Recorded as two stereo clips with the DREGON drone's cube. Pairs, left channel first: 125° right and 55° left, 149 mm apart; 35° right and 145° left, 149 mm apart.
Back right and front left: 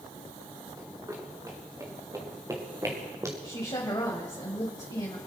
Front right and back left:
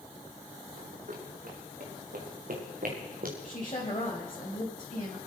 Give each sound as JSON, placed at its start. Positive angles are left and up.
{"t": 0.8, "sound": "running footsteps", "azimuth_deg": 125, "distance_m": 5.0}
{"t": 3.4, "sound": "a woman speaking", "azimuth_deg": -75, "distance_m": 2.0}